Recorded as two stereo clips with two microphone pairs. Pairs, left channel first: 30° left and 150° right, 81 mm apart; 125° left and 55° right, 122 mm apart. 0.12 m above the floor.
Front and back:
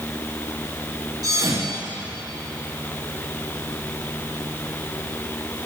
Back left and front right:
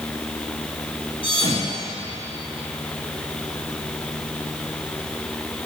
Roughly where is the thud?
Behind.